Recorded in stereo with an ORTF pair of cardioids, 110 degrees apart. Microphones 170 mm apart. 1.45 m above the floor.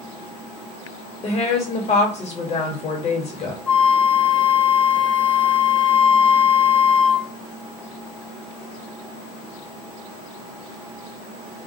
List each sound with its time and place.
1.2 s a woman speaking: 40° left, 1.3 m
3.7 s a flute: 10° left, 0.6 m